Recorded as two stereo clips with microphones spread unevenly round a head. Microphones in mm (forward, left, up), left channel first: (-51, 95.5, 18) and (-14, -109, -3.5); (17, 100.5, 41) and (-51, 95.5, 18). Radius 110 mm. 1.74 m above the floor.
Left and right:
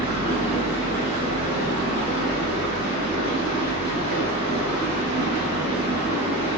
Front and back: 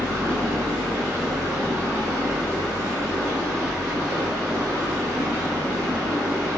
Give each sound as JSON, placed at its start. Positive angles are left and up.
{"t": 0.0, "sound": "running water", "azimuth_deg": -5, "distance_m": 1.7}